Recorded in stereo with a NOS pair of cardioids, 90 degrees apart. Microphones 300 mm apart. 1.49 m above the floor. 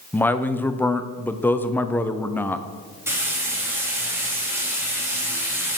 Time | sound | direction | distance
0.1 | a man speaking | 5° left | 0.8 m
3.1 | frying | 10° right | 3 m